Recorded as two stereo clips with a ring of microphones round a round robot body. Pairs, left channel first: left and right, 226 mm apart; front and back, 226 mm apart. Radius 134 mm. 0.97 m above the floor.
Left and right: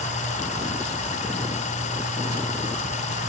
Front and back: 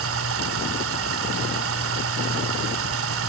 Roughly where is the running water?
Behind left.